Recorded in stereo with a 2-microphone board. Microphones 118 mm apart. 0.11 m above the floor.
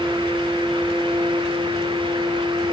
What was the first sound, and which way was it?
Only background noise.